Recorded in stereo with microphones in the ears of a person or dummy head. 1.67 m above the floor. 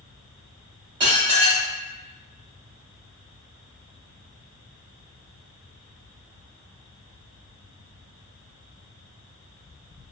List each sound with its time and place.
1.0 s dishes clattering: 20° right (ahead or behind), 0.7 m